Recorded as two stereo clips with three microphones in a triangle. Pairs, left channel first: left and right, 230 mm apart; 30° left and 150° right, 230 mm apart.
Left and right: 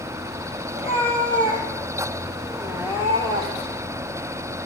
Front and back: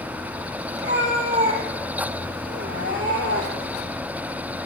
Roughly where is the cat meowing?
Behind left.